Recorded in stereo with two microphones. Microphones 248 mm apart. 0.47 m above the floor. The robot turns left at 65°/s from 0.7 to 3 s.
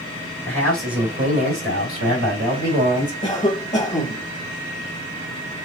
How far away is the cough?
About 1.2 m.